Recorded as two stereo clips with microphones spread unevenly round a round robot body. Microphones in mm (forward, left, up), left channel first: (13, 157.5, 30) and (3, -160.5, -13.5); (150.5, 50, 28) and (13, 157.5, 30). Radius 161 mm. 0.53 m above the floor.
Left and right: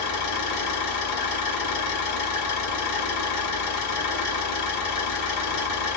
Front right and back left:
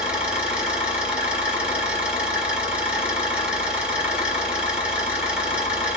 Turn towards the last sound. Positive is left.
turn(degrees=60)